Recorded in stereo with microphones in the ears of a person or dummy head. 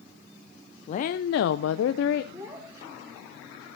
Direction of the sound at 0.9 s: 40° left (ahead or behind).